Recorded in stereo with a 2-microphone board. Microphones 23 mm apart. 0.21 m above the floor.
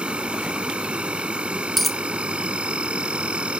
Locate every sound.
0.0 s an insect: 60° right (ahead or behind)
1.8 s a dropped coin: 5° left (ahead or behind)